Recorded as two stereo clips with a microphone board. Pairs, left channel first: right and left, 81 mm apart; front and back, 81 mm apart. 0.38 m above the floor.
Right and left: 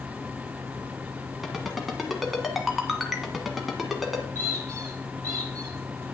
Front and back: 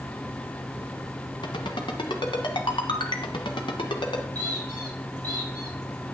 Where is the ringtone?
Straight ahead, 1.3 m.